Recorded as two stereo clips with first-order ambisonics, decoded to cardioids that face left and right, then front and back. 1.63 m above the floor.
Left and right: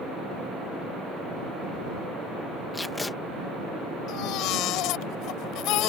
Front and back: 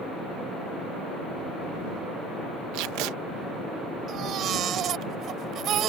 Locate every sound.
2.7 s tape being pulled: 170° left
4.1 s a baby crying: 125° left